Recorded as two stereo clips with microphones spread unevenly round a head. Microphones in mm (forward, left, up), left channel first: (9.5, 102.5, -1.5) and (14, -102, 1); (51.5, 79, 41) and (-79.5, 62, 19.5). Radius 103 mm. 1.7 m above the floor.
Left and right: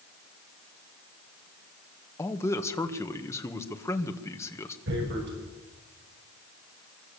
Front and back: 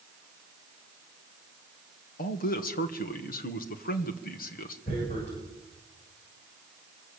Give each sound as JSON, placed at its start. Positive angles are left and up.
{"t": 2.2, "sound": "a man speaking", "azimuth_deg": 15, "distance_m": 2.0}
{"t": 4.9, "sound": "tearing paper", "azimuth_deg": -55, "distance_m": 7.5}